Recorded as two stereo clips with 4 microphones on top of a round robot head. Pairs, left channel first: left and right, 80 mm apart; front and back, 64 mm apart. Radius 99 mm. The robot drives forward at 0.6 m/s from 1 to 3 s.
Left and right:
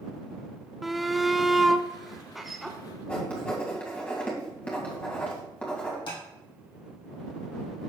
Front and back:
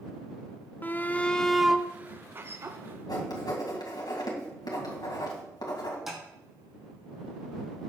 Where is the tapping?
95° left, 4.5 m.